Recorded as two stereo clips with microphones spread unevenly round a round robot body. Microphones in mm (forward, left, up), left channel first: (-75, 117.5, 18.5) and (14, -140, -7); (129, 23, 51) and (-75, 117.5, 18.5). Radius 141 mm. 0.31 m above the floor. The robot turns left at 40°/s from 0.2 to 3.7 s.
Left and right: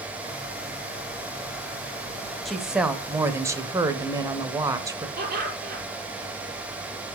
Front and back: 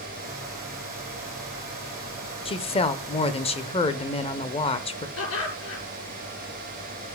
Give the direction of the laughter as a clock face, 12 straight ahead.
12 o'clock.